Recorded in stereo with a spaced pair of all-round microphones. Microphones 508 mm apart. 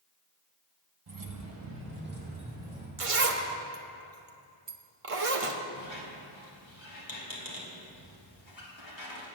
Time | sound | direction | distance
1.1 | keys jangling | 45° right (ahead or behind) | 0.8 m
3.0 | a zipper | 85° right | 0.9 m
5.8 | a squeak | 60° left (ahead or behind) | 1.9 m